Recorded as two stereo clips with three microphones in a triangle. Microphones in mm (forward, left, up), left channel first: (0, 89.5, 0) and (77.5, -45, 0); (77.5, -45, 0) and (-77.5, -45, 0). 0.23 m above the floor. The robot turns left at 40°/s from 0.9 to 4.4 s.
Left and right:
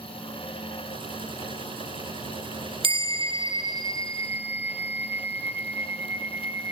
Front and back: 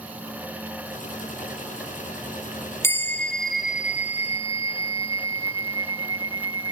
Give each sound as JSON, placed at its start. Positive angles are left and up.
{"t": 2.8, "sound": "a bell", "azimuth_deg": -65, "distance_m": 1.0}